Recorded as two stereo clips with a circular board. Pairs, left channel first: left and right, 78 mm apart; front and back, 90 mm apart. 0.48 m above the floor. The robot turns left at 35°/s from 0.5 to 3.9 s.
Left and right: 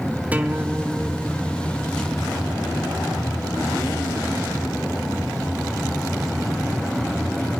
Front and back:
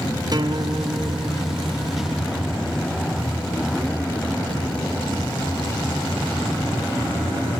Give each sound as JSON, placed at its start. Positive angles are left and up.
{"t": 0.3, "sound": "a guitar", "azimuth_deg": -155, "distance_m": 1.0}